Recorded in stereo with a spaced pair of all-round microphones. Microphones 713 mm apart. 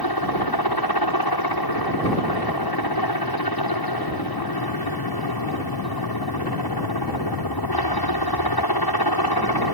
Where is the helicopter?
30° left (ahead or behind).